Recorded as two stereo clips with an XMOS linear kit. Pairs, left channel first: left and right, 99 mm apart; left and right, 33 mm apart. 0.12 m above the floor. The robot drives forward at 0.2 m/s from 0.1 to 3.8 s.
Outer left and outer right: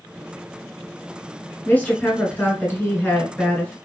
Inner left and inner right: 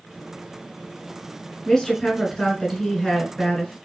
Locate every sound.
1.6 s a woman speaking: 20° left (ahead or behind), 1.3 m